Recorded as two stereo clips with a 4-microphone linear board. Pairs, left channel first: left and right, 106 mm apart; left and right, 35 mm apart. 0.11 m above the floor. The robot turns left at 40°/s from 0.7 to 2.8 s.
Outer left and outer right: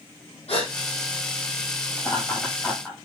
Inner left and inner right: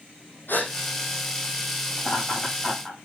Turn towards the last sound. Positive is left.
turn(degrees=0)  # may be behind; listen again after turning